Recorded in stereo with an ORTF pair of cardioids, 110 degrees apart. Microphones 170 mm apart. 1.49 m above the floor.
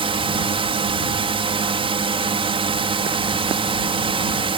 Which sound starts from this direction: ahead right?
A drone, at 0.0 s.